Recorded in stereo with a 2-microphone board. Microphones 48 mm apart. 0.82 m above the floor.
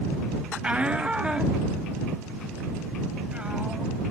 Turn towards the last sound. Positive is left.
turn(degrees=-20)  # may be behind; listen again after turning